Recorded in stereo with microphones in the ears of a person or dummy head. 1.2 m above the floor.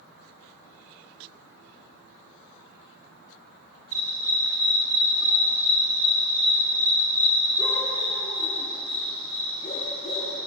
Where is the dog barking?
30° right (ahead or behind), 5.5 m; by 10.4 s 45° left (ahead or behind), 9 m.